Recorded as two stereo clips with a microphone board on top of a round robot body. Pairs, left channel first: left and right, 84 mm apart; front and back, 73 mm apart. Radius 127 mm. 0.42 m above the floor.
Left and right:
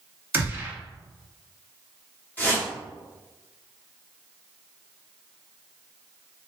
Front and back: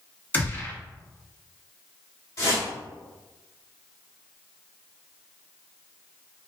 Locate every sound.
0.3 s a gunshot: 40° right, 1.4 m
2.4 s a whoosh: 25° left, 1.9 m